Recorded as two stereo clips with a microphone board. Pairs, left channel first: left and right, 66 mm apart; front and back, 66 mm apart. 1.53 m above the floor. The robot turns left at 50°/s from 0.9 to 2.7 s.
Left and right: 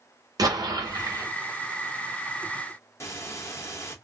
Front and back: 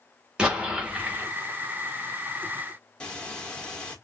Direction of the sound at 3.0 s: 70° left.